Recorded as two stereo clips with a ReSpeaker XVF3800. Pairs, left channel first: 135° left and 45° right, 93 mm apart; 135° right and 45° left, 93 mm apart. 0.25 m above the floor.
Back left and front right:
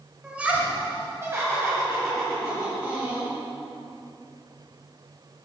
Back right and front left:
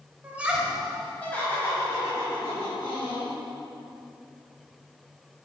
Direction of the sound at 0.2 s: 15° left.